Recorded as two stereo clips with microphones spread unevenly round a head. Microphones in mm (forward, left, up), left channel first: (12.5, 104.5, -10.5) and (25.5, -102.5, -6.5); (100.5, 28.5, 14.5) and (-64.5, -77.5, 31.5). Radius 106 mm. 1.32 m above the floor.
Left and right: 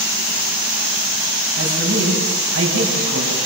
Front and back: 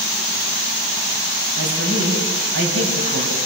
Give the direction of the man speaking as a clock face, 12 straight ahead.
4 o'clock.